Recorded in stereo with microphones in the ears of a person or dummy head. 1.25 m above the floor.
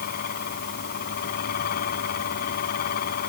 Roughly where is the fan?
Left.